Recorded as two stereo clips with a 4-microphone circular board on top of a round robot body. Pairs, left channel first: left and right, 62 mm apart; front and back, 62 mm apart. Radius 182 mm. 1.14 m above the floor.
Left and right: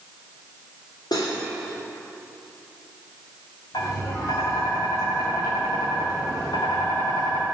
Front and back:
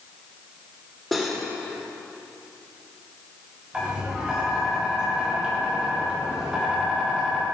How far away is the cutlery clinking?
About 2.5 m.